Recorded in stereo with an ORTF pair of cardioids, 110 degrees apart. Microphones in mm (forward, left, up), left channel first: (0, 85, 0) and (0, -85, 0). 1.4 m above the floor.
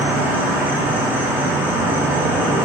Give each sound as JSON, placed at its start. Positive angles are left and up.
{"t": 0.0, "sound": "an insect", "azimuth_deg": -10, "distance_m": 1.0}